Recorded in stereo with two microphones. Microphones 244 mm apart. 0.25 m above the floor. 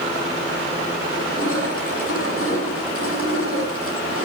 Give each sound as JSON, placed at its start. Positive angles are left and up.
{"t": 1.1, "sound": "crushing", "side_deg": 65, "distance_m": 9.5}